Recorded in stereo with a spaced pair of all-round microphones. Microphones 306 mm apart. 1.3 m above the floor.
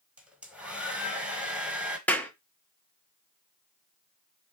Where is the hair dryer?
5° right (ahead or behind), 1.1 m.